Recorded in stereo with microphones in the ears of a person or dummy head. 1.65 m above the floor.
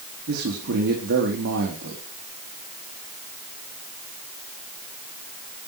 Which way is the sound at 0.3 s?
70° right (ahead or behind).